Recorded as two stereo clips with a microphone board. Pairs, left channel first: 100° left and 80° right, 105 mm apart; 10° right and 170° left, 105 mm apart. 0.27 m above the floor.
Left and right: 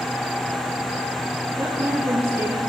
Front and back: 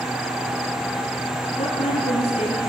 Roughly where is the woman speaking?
Ahead.